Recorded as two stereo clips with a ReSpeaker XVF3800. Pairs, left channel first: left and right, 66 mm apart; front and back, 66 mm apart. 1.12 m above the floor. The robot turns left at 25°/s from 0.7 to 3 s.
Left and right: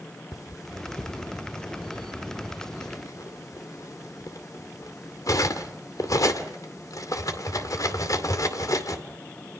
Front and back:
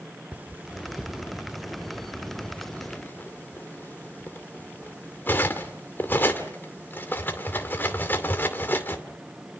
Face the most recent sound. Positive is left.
turn(degrees=60)